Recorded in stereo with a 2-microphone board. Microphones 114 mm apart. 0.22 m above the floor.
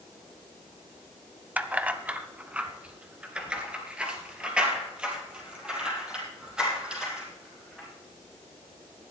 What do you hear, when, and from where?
1.6 s keys jangling: 15° right (ahead or behind), 0.7 m; by 7.9 s 10° right (ahead or behind), 6 m